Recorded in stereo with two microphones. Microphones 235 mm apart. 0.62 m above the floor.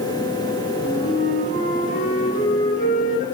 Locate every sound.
0.8 s a flute: 30° left (ahead or behind), 9 m